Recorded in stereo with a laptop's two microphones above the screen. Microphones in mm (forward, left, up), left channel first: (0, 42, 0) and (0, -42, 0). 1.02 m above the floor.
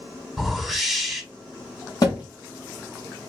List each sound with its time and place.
0.4 s a whoosh: 5° left (ahead or behind), 1.9 m
2.0 s a thud: 45° left (ahead or behind), 2.5 m